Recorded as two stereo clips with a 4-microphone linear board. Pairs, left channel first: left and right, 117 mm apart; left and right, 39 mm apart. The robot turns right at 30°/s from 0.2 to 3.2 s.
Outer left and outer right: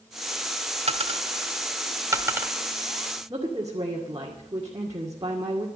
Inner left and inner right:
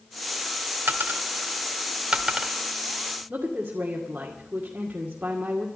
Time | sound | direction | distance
0.9 | a dropped coin | 65° right (ahead or behind) | 1.2 m
3.3 | a woman speaking | 35° right (ahead or behind) | 2 m